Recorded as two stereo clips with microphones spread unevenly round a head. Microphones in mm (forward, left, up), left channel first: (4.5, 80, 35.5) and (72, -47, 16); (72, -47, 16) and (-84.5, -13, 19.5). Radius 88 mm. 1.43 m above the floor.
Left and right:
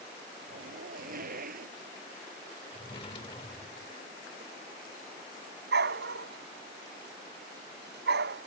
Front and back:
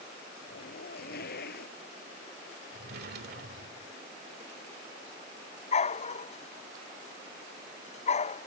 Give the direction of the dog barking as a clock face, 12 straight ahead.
2 o'clock.